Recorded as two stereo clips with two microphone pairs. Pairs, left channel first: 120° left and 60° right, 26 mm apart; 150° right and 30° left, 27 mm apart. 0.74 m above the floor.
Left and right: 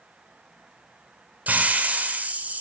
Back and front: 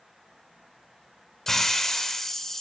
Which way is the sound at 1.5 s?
75° right.